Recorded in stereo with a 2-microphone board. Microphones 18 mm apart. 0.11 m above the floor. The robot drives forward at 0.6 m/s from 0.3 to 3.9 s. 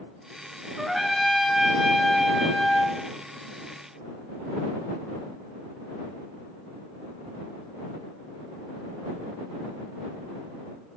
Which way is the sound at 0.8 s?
10° right (ahead or behind).